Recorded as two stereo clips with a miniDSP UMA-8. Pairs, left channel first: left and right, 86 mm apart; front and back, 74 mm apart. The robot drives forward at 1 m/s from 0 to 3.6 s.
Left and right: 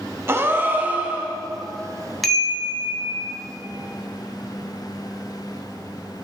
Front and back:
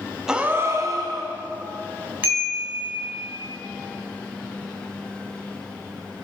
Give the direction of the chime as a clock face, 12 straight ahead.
6 o'clock.